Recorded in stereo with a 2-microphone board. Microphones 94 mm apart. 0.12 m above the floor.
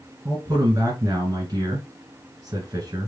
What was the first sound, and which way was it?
A man speaking, 35° right (ahead or behind).